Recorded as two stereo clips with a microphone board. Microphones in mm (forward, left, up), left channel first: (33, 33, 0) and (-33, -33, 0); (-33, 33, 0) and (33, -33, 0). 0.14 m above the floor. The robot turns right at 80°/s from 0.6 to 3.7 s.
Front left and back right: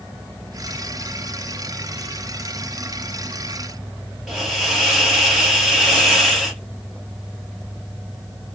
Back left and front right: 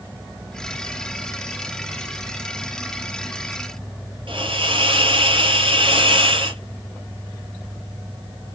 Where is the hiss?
50° right, 1.6 m.